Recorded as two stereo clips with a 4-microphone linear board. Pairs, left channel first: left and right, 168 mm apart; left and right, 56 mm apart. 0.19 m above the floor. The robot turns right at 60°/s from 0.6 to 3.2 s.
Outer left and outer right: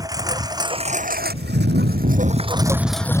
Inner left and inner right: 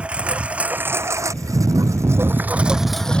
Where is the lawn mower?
20° right (ahead or behind); by 3.2 s 20° left (ahead or behind).